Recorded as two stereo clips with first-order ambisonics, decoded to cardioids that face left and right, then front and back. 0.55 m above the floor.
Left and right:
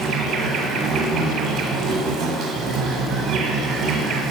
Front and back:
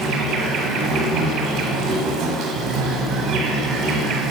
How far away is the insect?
About 1.1 m.